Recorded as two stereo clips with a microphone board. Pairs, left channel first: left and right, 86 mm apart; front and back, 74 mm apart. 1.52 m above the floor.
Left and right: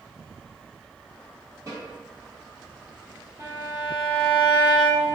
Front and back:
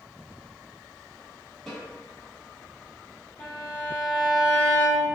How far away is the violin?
About 1.5 m.